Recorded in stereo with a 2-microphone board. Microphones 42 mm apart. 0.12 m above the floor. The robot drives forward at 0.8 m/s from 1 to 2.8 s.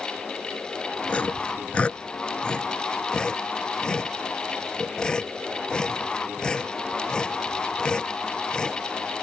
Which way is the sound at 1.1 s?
30° left (ahead or behind).